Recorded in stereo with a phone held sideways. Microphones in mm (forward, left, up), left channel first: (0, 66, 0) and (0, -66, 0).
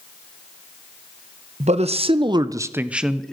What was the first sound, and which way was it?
A man speaking, 60° right (ahead or behind).